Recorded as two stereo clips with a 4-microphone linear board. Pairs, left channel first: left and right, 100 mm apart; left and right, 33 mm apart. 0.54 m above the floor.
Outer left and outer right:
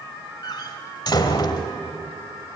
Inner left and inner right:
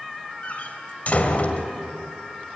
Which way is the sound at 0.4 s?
45° left (ahead or behind).